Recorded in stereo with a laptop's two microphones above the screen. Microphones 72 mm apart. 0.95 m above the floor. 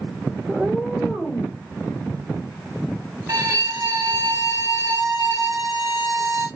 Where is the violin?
45° right (ahead or behind), 0.8 m.